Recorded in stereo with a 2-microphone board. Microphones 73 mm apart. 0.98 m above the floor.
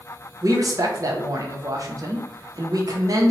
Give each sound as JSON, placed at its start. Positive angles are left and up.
{"t": 0.4, "sound": "a man speaking", "side_deg": -55, "distance_m": 0.6}